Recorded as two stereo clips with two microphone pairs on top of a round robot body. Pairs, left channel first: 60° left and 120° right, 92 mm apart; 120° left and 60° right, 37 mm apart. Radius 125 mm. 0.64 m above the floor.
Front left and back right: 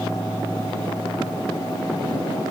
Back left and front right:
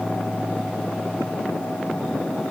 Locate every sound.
Only background noise.